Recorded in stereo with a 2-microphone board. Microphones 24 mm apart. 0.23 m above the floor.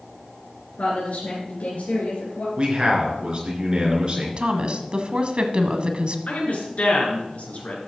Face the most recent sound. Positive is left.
turn(degrees=65)  # may be behind; listen again after turning